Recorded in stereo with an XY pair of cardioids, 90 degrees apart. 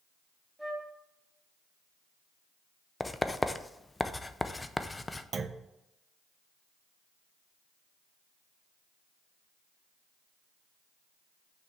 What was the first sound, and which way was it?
A flute, 10° right.